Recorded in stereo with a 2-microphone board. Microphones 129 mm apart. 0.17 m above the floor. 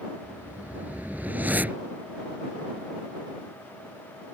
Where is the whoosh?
15° right (ahead or behind).